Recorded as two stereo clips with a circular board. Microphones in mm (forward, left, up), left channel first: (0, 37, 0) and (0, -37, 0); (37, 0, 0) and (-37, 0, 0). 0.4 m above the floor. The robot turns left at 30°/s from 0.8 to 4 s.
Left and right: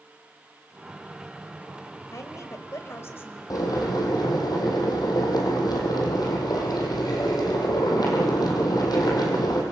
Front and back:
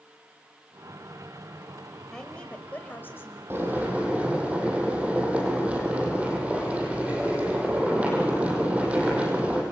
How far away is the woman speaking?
About 2 m.